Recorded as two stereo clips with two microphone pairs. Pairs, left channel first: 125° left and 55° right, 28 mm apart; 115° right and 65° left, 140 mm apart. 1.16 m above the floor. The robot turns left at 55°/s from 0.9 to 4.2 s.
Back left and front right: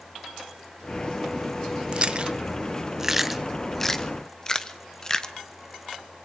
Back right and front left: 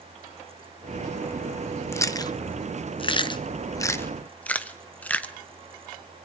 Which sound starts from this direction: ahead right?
Chewing, at 1.9 s.